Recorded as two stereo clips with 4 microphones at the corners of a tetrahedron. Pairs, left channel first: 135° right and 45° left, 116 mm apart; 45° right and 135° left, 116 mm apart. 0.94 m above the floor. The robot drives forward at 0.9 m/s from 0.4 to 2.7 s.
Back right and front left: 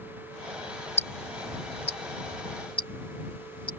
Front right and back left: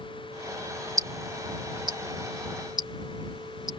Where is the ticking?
165° right; by 3.7 s 175° right.